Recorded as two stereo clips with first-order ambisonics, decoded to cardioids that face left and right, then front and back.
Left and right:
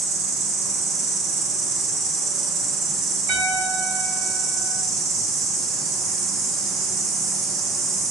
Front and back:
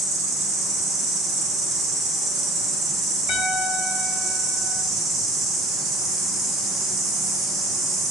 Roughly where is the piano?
Ahead right.